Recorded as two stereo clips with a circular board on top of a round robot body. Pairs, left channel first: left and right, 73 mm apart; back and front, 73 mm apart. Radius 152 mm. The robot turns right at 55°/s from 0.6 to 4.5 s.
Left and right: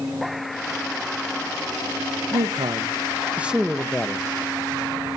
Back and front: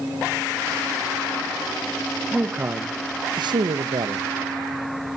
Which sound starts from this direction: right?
A man speaking, at 2.3 s.